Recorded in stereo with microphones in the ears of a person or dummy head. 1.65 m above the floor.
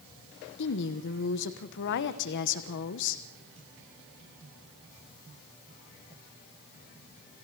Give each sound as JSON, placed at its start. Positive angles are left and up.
{"t": 0.6, "sound": "a woman speaking", "side_deg": 60, "distance_m": 1.2}